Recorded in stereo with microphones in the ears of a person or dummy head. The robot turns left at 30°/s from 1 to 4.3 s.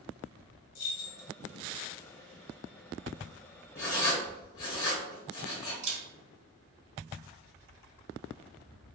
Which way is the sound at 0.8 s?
75° left (ahead or behind).